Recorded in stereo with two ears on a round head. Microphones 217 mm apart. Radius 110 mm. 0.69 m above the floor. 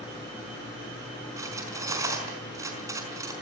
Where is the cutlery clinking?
15° right (ahead or behind), 5 m.